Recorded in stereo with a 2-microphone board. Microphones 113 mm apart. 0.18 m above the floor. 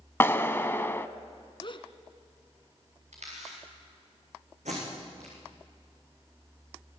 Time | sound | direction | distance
0.2 | a clap | 20° left (ahead or behind) | 0.9 m
1.6 | a gasp | 50° left (ahead or behind) | 1.5 m
3.1 | a camera shutter | 80° right | 10 m
4.7 | tape being pulled | 85° right | 8 m